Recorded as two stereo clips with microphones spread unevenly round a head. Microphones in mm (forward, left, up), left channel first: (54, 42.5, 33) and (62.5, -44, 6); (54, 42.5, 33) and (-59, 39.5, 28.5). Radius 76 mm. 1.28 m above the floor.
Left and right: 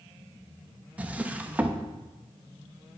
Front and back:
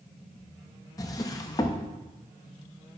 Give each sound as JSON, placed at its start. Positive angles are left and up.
{"t": 1.0, "sound": "a drawer", "azimuth_deg": 10, "distance_m": 0.6}